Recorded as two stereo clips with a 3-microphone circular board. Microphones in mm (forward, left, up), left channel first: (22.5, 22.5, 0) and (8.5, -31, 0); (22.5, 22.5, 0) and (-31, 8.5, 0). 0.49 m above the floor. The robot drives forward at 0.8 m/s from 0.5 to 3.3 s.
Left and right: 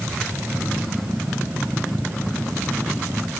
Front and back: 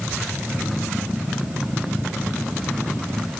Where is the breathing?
No breathing in this recording.